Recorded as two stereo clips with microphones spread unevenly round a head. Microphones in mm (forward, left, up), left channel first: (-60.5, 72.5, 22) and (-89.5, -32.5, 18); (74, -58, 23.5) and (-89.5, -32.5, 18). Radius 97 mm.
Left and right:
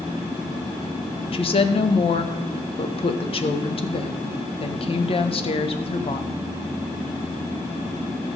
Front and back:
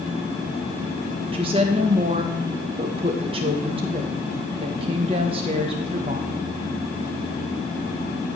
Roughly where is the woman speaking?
Left.